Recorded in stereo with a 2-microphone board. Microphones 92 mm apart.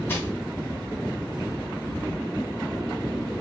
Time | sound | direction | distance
0.1 | crushing | 25° left (ahead or behind) | 0.8 m